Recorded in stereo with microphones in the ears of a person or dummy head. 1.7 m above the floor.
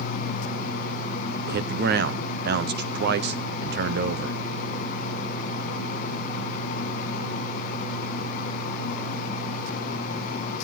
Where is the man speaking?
65° right (ahead or behind), 1.0 m.